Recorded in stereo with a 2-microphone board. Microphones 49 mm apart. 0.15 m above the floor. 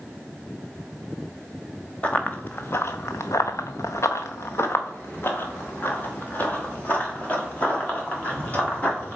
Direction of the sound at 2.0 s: 30° left (ahead or behind).